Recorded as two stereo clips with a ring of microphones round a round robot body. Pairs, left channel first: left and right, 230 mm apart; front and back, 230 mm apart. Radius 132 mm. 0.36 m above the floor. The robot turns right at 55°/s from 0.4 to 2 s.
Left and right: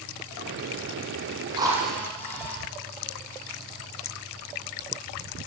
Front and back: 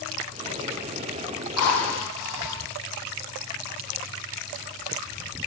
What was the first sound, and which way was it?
A drill, 20° right.